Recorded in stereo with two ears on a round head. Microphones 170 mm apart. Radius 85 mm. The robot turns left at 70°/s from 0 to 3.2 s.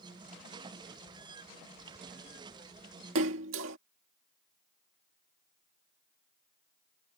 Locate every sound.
3.1 s a splash: 75° right (ahead or behind)